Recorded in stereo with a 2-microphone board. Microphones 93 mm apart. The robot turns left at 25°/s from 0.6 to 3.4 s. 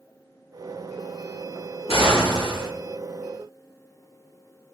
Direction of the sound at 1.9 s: 85° left.